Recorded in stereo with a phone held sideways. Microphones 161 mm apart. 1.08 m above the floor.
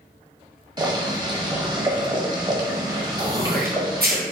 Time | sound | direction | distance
0.8 | boiling | 25° right (ahead or behind) | 1.0 m
3.2 | throat clearing | 70° right (ahead or behind) | 0.9 m